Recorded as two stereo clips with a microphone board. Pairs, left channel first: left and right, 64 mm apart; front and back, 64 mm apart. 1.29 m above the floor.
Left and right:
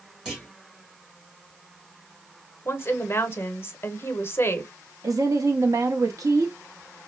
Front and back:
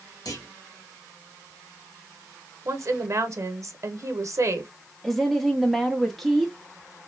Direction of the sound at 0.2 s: 15° right.